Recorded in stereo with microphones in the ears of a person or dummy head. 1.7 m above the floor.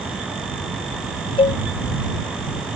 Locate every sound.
1.4 s a cowbell: 30° left (ahead or behind)